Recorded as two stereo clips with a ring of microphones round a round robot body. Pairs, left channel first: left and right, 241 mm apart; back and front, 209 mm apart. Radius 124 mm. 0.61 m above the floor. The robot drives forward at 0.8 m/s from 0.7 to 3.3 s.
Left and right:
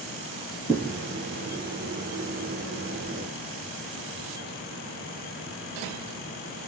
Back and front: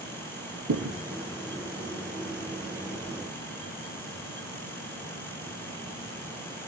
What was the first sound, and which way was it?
A thud, 10° right.